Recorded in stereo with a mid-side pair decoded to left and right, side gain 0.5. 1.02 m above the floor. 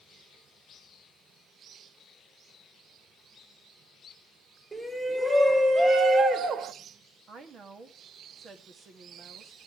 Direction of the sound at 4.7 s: 15° right.